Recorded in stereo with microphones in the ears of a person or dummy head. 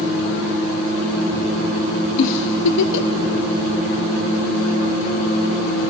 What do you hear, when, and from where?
2.2 s a giggle: 70° left (ahead or behind), 0.5 m